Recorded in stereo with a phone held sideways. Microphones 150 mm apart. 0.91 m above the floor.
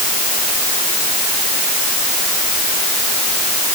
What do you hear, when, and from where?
Only background noise.